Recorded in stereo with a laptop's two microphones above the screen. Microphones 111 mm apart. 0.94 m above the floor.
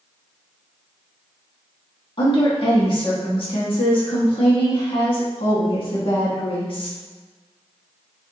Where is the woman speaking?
50° left (ahead or behind), 1.3 m.